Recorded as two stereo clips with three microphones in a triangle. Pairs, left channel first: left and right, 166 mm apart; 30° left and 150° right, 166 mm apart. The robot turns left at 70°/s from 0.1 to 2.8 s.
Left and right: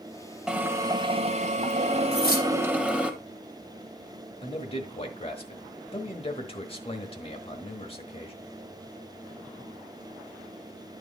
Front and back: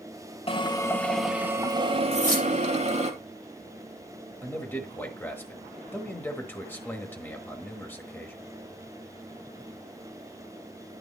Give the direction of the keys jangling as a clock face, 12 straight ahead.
9 o'clock.